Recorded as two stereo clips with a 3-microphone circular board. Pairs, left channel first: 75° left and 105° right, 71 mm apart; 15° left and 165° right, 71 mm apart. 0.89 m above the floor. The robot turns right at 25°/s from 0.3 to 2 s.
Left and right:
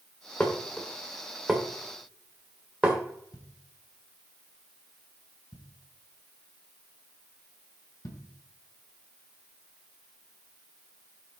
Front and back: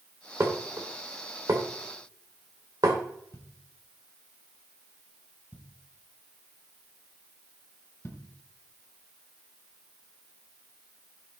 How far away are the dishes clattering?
About 2 m.